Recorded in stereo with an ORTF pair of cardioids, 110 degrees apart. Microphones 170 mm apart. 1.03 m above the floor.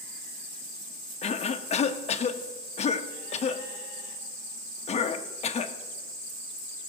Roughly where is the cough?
Ahead left.